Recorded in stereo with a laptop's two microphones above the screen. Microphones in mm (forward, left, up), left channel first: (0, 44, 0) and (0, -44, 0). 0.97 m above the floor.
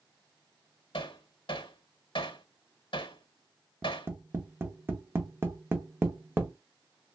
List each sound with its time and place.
0.9 s hammering: 70° left (ahead or behind), 0.8 m
3.8 s tapping: 25° right (ahead or behind), 0.6 m